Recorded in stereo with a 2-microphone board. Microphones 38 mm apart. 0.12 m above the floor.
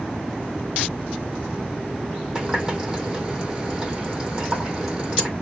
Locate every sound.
2.4 s a running tap: 15° right (ahead or behind), 3.5 m